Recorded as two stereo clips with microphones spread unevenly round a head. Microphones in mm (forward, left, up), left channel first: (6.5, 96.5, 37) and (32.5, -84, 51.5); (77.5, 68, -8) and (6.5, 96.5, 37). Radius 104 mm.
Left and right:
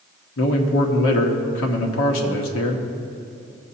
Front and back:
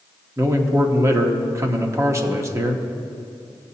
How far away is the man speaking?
About 1.3 m.